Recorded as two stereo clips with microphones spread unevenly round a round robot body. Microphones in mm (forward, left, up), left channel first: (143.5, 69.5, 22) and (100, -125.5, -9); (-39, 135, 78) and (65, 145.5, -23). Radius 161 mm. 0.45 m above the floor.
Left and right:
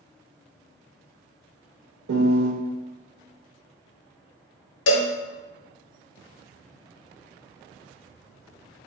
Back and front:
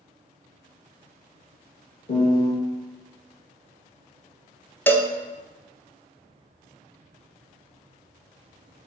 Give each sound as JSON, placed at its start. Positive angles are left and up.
{"t": 2.1, "sound": "a piano", "azimuth_deg": -115, "distance_m": 0.6}
{"t": 4.9, "sound": "a cowbell", "azimuth_deg": 80, "distance_m": 0.6}